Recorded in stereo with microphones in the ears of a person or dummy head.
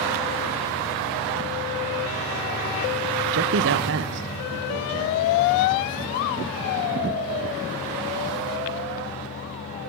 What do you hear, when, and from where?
3.3 s a man speaking: 70° right (ahead or behind), 0.8 m; by 5.2 s 60° right (ahead or behind), 3.5 m